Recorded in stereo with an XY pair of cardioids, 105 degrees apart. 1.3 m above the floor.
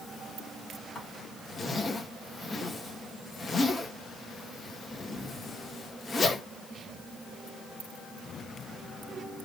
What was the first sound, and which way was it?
A zipper, 35° left.